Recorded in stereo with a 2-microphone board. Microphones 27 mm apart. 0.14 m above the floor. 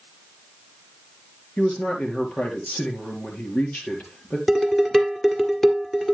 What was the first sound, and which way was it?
A man speaking, 60° left (ahead or behind).